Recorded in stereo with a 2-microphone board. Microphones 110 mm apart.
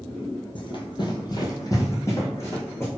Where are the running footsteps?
50° left (ahead or behind), 0.6 m; by 2.9 s 20° left (ahead or behind), 1.8 m.